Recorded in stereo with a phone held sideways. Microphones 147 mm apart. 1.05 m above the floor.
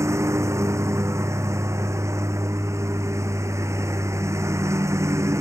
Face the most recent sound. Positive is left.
turn(degrees=-20)  # may be behind; listen again after turning